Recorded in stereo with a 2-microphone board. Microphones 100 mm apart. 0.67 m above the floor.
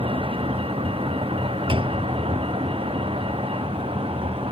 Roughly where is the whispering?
No whispering in this recording.